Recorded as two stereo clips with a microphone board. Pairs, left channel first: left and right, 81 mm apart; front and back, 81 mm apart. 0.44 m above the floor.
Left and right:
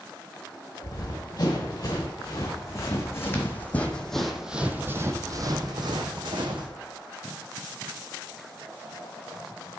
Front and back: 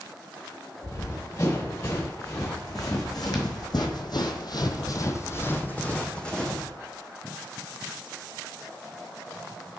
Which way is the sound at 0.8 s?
50° left.